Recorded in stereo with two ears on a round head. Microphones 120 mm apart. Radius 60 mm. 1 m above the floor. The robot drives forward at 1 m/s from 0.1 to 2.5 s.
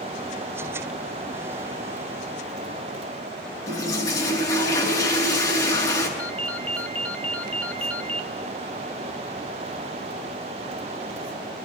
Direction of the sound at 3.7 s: 25° left (ahead or behind).